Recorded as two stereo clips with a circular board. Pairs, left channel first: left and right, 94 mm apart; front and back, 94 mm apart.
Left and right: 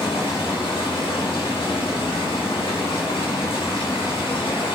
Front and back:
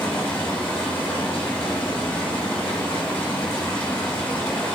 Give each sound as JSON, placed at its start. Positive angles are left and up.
{"t": 0.0, "sound": "running water", "azimuth_deg": 70, "distance_m": 5.0}